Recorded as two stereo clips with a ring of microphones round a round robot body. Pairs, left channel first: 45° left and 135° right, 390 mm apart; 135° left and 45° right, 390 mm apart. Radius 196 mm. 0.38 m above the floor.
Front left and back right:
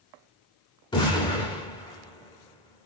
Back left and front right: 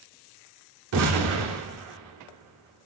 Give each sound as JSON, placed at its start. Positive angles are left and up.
{"t": 0.9, "sound": "an explosion", "azimuth_deg": -25, "distance_m": 1.3}